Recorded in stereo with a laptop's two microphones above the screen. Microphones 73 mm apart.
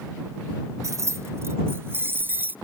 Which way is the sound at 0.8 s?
45° right (ahead or behind).